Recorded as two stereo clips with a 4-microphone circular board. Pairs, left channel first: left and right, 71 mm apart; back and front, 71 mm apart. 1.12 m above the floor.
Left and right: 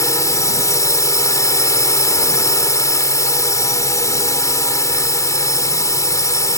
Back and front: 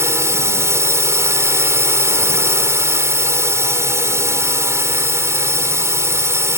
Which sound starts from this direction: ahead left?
A drone, at 0.0 s.